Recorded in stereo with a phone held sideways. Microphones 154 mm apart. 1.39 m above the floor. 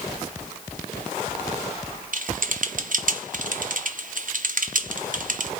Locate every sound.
2.1 s typing on a keyboard: 60° right (ahead or behind), 1.0 m